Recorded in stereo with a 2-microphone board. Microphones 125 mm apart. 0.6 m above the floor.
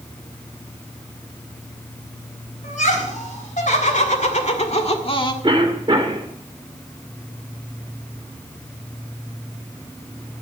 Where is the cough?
40° right (ahead or behind), 1.9 m.